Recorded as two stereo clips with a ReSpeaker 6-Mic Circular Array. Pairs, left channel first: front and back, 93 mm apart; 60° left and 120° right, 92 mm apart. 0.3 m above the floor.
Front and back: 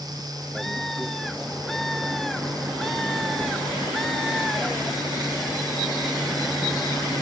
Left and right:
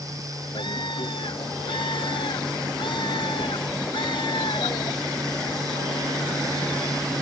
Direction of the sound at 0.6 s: 85° left.